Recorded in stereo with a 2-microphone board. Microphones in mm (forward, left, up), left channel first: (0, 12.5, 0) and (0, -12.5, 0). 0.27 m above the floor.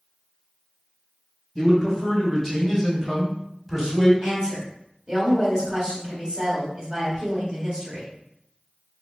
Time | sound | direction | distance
1.6 | a man speaking | 15° left (ahead or behind) | 1.1 m
4.2 | a woman speaking | 35° right (ahead or behind) | 1.6 m